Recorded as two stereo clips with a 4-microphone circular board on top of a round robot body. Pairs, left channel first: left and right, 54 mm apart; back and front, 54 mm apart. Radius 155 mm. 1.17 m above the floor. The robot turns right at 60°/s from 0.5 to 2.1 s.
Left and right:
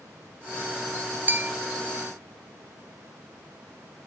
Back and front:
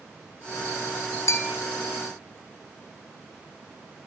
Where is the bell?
145° right, 0.6 m; by 1.5 s 130° right, 0.6 m.